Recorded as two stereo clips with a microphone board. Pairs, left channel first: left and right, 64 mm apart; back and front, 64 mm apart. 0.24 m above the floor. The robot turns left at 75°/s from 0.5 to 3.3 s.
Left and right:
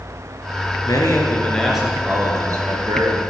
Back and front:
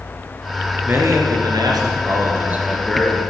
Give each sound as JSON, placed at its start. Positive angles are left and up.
{"t": 0.8, "sound": "a man speaking", "azimuth_deg": 65, "distance_m": 3.0}